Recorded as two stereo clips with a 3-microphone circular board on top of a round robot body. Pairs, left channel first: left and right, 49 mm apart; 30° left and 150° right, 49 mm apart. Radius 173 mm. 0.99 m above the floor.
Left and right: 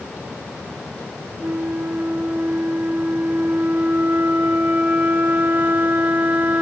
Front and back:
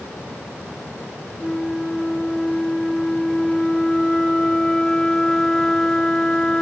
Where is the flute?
45° right, 1.3 m.